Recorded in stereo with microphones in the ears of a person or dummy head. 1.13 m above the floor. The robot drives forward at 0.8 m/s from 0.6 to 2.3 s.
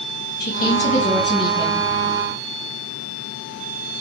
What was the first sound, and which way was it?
A woman speaking, 40° left (ahead or behind).